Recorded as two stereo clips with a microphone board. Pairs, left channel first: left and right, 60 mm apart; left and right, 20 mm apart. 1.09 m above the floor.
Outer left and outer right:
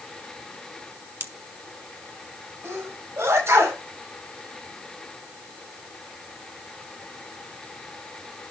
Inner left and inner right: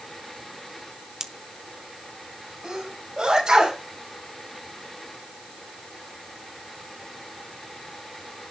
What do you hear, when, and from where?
1.2 s a pop: 40° right (ahead or behind), 0.9 m
2.6 s a sneeze: 50° right (ahead or behind), 5 m